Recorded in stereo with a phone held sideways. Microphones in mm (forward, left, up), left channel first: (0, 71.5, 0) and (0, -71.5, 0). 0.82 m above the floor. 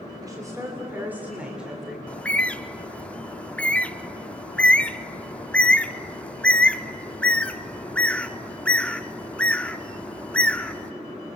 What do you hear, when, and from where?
0.2 s a woman speaking: 25° right (ahead or behind), 2.5 m; by 2.0 s centre (ahead or behind), 3.5 m
2.1 s a bird: 10° left (ahead or behind), 0.5 m